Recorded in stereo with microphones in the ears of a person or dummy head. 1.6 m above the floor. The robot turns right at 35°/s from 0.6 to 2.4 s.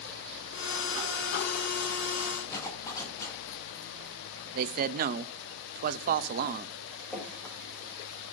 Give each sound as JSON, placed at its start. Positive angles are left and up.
{"t": 2.5, "sound": "a zipper", "side_deg": 10, "distance_m": 2.5}
{"t": 4.5, "sound": "a man speaking", "side_deg": -55, "distance_m": 0.5}
{"t": 7.1, "sound": "dripping", "side_deg": 0, "distance_m": 2.5}